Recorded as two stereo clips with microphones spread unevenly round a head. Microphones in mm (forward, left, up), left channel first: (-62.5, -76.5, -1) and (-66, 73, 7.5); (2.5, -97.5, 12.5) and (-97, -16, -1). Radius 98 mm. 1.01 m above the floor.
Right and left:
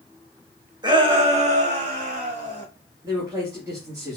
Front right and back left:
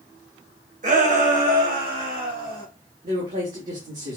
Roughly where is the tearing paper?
I don't hear tearing paper.